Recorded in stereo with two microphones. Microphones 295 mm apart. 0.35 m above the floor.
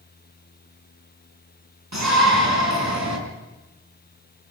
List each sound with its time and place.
1.9 s a shout: 70° right (ahead or behind), 4.5 m; by 3.2 s 65° right (ahead or behind), 4.5 m